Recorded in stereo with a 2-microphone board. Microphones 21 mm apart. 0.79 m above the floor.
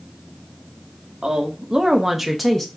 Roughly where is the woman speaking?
Right.